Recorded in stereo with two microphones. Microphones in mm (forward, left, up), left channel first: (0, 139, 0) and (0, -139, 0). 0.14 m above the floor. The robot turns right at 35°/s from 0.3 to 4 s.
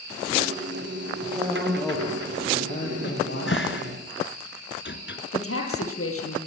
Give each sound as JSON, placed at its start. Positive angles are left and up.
{"t": 1.2, "sound": "a man speaking", "azimuth_deg": -25, "distance_m": 5.5}
{"t": 3.0, "sound": "a cupboard door", "side_deg": 45, "distance_m": 1.7}
{"t": 5.3, "sound": "a woman speaking", "side_deg": 55, "distance_m": 5.0}